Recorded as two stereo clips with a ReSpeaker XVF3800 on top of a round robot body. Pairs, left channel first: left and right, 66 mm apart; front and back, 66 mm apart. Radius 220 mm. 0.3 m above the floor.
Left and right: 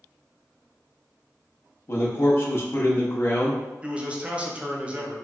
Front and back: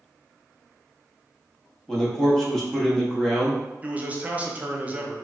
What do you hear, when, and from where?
1.9 s a man speaking: 75° left, 1.1 m
3.8 s a man speaking: 140° right, 0.9 m